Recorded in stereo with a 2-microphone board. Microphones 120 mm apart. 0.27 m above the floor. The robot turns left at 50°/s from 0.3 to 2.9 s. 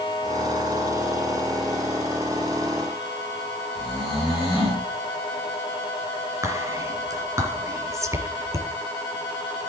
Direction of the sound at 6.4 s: 25° right (ahead or behind).